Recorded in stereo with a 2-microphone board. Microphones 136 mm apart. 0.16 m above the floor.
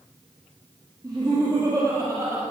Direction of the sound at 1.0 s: 30° right (ahead or behind).